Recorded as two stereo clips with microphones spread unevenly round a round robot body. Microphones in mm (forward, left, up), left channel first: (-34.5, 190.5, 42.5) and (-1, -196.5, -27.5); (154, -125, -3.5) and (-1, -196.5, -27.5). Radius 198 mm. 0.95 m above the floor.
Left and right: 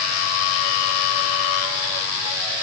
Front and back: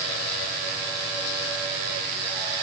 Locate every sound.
Only background noise.